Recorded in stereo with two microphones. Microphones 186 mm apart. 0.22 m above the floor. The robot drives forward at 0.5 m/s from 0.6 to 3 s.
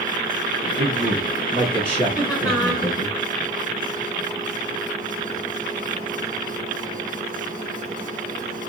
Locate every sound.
0.8 s a man speaking: 30° right (ahead or behind), 4.5 m; by 3.1 s 35° right (ahead or behind), 3.5 m
2.1 s laughter: 5° right (ahead or behind), 3 m